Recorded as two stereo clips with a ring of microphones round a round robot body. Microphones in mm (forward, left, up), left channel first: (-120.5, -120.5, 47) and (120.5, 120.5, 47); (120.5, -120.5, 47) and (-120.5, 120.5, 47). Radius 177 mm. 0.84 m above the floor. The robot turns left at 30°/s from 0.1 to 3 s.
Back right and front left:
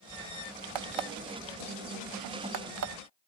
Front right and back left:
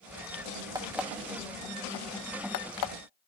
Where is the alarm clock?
55° left, 0.8 m; by 2.9 s 10° right, 0.8 m.